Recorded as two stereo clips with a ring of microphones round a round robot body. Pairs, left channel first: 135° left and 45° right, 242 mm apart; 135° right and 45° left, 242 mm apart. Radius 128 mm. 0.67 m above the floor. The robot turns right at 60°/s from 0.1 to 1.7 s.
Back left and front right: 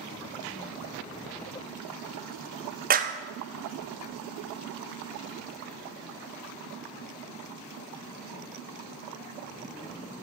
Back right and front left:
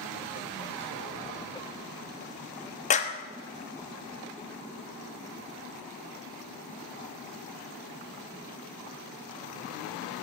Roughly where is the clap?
Right.